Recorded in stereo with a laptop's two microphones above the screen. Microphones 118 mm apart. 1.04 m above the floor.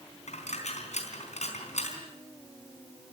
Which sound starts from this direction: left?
A dropped coin, at 0.3 s.